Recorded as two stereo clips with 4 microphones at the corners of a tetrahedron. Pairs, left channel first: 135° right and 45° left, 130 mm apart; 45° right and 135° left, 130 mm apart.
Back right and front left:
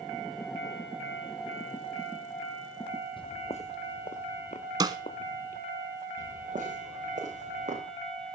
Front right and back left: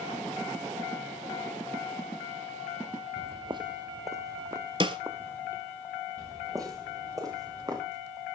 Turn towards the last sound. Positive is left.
turn(degrees=75)